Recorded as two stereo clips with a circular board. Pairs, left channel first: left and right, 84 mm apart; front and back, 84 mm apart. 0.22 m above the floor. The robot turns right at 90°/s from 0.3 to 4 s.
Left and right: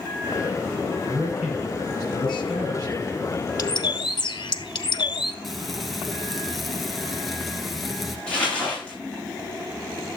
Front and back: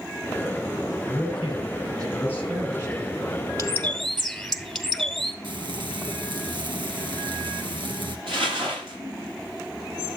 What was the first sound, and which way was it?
A man speaking, 45° right.